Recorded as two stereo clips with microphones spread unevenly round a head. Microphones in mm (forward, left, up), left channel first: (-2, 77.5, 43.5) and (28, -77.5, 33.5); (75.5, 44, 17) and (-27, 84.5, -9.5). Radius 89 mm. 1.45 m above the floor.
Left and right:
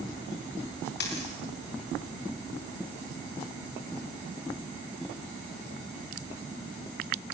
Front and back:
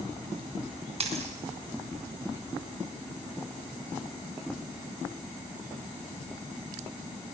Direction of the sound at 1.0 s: 130° left.